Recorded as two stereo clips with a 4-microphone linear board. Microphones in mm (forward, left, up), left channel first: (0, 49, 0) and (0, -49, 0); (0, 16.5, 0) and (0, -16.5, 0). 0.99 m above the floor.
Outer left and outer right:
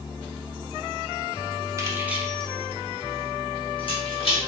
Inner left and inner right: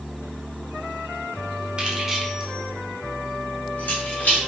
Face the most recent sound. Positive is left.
turn(degrees=70)  # may be behind; listen again after turning